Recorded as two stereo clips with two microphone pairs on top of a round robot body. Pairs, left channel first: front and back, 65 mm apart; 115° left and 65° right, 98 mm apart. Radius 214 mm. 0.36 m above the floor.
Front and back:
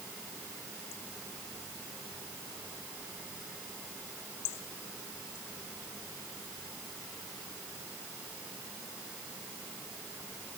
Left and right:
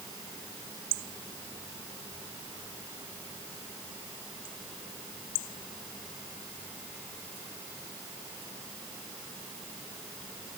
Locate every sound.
Only background noise.